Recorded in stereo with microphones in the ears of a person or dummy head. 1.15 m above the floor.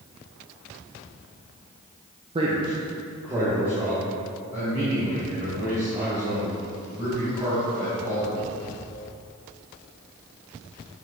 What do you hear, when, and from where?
2.4 s a man speaking: 25° right (ahead or behind), 0.5 m; by 8.3 s 15° right (ahead or behind), 6 m